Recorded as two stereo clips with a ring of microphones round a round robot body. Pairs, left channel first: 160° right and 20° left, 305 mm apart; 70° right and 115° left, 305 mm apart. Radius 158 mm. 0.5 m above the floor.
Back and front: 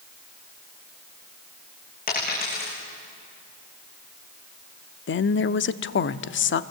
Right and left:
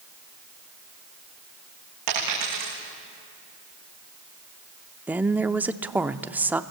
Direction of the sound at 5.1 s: 165° right.